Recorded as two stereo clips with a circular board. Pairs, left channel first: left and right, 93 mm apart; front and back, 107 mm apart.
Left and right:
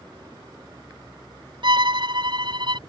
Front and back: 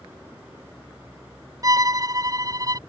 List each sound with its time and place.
1.6 s a violin: 125° right